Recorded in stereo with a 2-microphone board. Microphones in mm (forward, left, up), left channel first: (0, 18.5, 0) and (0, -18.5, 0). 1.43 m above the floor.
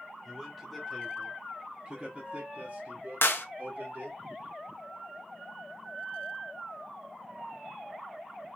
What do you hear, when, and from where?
0.2 s a man speaking: 10° left (ahead or behind), 1.7 m; by 4.2 s 70° right (ahead or behind), 1.9 m
3.2 s a clap: 80° left, 0.6 m